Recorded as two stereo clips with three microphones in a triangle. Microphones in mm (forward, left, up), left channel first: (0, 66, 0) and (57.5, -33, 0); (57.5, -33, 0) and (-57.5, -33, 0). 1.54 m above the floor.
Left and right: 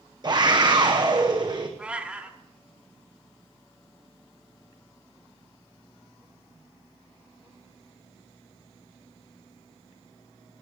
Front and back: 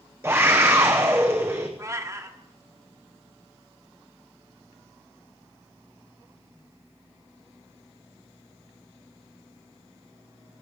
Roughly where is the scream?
Right.